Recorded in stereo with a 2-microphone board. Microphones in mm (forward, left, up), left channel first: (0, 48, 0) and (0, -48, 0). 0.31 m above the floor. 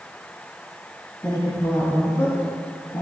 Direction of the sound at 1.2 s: 35° left (ahead or behind).